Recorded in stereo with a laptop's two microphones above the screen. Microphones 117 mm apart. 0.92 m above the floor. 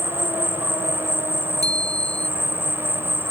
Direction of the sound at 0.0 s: 20° right (ahead or behind).